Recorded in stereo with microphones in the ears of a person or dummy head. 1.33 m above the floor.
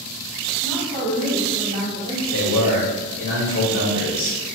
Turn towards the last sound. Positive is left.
turn(degrees=50)  # may be behind; listen again after turning